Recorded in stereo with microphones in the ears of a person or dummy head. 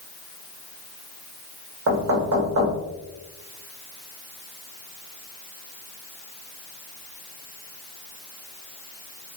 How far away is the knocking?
About 1.5 m.